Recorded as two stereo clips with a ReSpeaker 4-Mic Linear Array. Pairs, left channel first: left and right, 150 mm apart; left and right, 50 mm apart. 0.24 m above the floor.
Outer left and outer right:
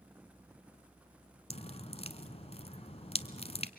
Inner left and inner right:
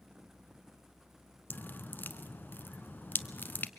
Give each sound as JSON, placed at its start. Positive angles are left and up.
{"t": 1.5, "sound": "dripping", "side_deg": 40, "distance_m": 0.8}